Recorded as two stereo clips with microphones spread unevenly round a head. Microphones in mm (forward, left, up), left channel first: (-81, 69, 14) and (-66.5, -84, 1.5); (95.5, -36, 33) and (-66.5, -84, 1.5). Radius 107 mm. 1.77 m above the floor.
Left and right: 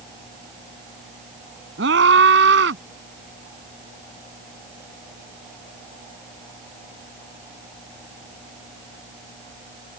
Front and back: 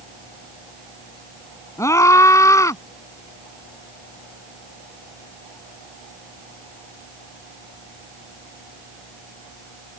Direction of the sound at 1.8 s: 55° right.